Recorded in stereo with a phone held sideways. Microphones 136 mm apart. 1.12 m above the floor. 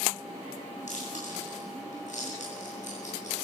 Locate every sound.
0.9 s chewing: 65° left (ahead or behind), 9 m